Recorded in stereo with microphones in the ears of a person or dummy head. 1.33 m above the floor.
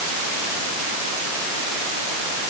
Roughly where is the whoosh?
I don't hear a whoosh.